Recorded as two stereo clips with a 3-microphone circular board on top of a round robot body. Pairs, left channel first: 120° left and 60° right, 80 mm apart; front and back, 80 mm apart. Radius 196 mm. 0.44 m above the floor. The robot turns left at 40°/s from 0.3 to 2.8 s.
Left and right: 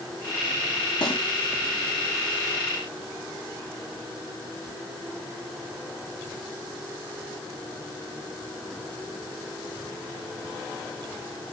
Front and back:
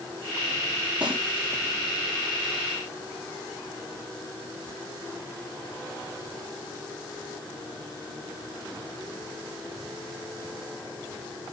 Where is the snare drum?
105° left, 5 m; by 1.2 s 100° left, 5 m.